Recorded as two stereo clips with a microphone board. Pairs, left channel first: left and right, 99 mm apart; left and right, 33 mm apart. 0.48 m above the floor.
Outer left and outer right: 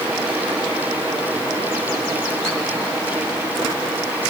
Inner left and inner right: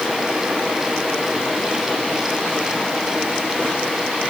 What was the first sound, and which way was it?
Only background noise.